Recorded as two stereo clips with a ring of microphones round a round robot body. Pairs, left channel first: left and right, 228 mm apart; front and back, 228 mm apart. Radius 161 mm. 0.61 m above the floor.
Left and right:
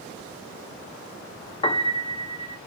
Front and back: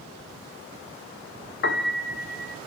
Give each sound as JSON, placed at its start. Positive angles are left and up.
{"t": 1.6, "sound": "a piano", "azimuth_deg": 25, "distance_m": 0.9}